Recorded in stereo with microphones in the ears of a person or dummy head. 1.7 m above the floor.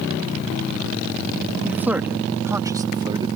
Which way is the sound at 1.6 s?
15° right (ahead or behind).